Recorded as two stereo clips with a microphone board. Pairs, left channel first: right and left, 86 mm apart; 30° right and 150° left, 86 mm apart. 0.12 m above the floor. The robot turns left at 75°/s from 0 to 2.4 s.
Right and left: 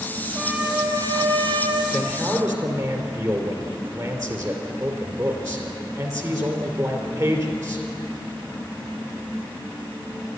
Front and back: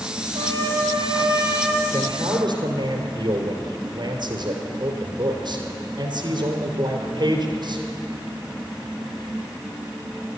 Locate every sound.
0.3 s a trumpet: 175° left, 2 m; by 1.8 s 65° left, 2 m
1.9 s a man speaking: 170° left, 3 m; by 7.9 s 135° left, 3 m